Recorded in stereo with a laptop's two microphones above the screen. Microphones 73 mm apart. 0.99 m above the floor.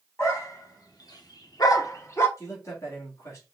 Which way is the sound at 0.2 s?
45° left (ahead or behind).